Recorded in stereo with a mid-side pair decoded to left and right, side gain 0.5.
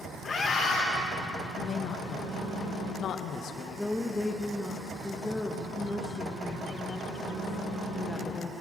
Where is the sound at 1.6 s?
60° left, 1.3 m.